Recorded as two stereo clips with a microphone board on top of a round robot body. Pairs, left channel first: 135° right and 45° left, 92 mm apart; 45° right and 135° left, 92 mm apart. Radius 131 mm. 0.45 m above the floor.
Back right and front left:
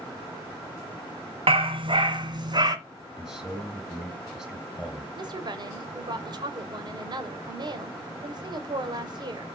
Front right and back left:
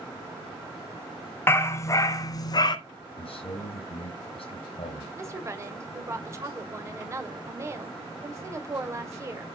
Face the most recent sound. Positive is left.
turn(degrees=80)